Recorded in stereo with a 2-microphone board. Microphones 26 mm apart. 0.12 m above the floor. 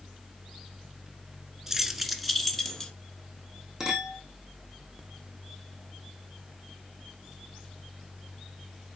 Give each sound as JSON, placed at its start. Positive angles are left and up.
{"t": 1.7, "sound": "keys jangling", "side_deg": -15, "distance_m": 1.2}
{"t": 3.8, "sound": "a clink", "side_deg": -15, "distance_m": 4.0}